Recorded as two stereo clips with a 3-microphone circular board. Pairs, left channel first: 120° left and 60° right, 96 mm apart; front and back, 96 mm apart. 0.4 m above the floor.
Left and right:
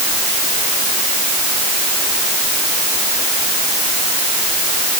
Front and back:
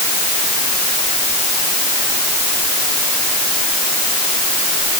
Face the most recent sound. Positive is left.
No sound to turn to.